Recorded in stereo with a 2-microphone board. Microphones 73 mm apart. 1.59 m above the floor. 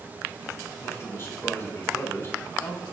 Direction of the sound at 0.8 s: 35° left (ahead or behind).